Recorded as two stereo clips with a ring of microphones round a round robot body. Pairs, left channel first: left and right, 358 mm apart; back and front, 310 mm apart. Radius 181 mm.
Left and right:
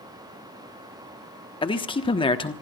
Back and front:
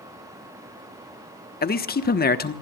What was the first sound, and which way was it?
A man speaking, 155° left.